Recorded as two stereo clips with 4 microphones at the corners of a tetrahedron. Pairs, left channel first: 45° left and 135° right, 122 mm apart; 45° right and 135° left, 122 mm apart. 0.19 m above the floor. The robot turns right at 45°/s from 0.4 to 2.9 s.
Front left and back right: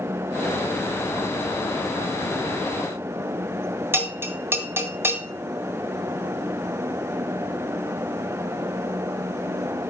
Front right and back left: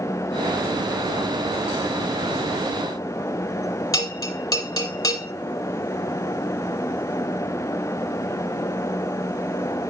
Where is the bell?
80° right, 1.9 m.